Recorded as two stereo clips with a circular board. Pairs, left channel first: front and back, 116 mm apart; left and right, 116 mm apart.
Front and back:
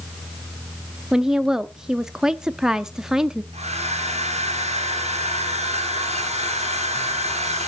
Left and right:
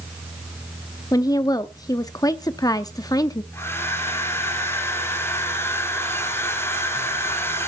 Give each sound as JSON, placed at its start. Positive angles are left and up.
{"t": 1.1, "sound": "a woman speaking", "azimuth_deg": 100, "distance_m": 0.6}
{"t": 3.5, "sound": "a hair dryer", "azimuth_deg": 160, "distance_m": 3.5}